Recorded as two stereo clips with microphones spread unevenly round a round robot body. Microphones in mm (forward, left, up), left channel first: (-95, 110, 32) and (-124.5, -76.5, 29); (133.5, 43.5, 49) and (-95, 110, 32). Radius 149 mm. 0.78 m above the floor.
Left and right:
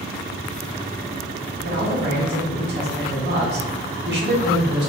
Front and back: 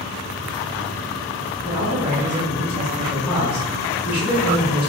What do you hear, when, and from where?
1.6 s a man speaking: 115° right, 1.0 m